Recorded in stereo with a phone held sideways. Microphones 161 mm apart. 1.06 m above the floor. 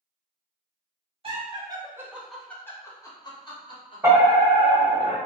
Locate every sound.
1.2 s laughter: 35° right (ahead or behind), 0.7 m; by 4.0 s 35° left (ahead or behind), 1.1 m
4.0 s a fire alarm: 20° right (ahead or behind), 1.3 m